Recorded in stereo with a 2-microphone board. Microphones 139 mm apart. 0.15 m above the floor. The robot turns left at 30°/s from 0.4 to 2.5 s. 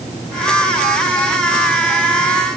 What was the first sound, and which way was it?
Only background noise.